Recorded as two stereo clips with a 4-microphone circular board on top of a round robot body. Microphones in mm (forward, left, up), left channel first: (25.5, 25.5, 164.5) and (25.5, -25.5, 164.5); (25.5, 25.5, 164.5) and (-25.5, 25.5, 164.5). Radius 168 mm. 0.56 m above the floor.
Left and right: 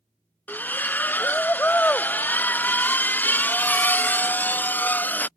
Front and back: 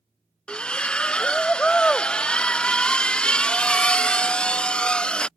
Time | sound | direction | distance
0.5 | a splash | 60° left | ?